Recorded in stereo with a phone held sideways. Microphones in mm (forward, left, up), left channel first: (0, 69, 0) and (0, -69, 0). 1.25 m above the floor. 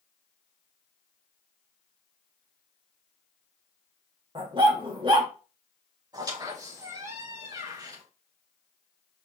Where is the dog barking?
35° right (ahead or behind), 1.9 m.